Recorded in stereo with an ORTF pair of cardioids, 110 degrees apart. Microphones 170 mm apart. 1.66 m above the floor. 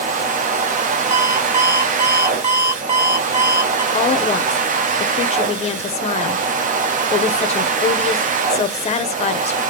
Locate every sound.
0.0 s a machine running: 45° right, 0.7 m
1.1 s an alarm clock: 30° right, 2.5 m
3.9 s a woman speaking: 35° left, 0.8 m